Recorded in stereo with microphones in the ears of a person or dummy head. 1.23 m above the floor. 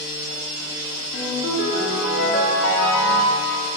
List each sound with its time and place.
1.1 s a ringtone: 60° left (ahead or behind), 1.7 m